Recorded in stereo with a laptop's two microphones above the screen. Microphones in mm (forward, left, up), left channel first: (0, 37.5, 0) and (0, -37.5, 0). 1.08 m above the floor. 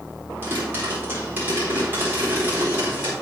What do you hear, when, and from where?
0.4 s a pop: 25° right (ahead or behind), 4 m